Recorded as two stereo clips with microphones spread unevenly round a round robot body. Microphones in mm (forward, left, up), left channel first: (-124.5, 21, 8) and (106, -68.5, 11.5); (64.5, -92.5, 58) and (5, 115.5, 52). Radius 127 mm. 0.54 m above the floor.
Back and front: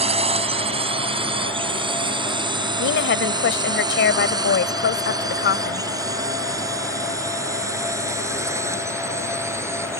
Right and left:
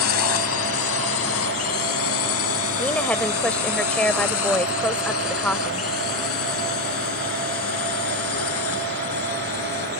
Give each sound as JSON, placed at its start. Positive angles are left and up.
{"t": 0.0, "sound": "a drone", "azimuth_deg": -85}
{"t": 2.8, "sound": "a woman speaking", "azimuth_deg": -160}